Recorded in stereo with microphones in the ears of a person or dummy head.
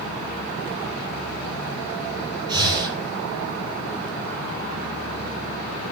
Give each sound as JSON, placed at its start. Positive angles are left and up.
{"t": 2.5, "sound": "breathing", "side_deg": -25, "distance_m": 6.0}